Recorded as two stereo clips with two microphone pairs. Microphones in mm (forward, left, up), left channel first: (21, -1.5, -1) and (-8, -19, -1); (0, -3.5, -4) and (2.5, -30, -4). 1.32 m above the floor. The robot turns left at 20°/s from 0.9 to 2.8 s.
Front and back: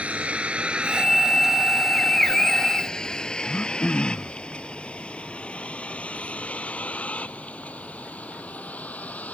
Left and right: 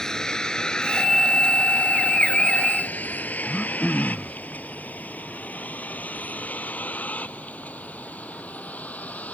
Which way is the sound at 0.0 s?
165° left.